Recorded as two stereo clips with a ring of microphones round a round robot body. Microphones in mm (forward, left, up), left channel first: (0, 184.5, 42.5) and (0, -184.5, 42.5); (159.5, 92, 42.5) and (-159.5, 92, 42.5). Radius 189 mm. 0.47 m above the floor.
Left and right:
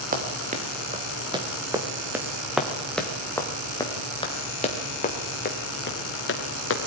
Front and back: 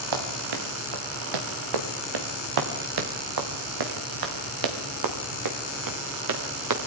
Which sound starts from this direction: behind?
Running footsteps, at 0.1 s.